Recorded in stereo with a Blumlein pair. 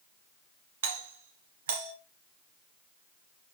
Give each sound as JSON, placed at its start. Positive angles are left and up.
{"t": 0.8, "sound": "a doorbell", "azimuth_deg": -60, "distance_m": 3.0}